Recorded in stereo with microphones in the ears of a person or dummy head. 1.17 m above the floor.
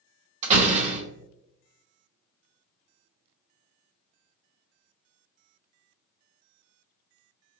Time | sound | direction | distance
0.4 | a door slam | 40° right (ahead or behind) | 0.8 m